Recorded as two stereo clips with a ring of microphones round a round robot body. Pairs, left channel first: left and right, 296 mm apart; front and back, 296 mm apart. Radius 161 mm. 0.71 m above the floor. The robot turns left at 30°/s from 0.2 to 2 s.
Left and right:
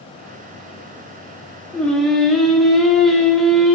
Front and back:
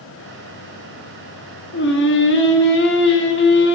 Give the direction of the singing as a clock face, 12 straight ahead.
12 o'clock.